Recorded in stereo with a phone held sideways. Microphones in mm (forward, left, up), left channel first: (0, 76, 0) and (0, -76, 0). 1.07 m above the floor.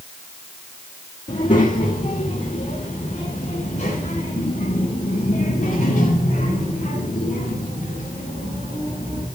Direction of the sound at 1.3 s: 60° left (ahead or behind).